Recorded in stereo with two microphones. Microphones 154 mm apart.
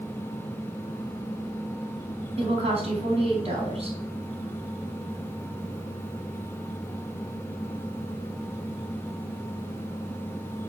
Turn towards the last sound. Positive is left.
turn(degrees=-40)  # may be behind; listen again after turning